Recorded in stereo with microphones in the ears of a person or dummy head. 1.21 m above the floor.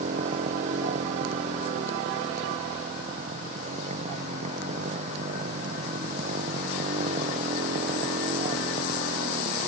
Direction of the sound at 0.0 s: 40° right (ahead or behind).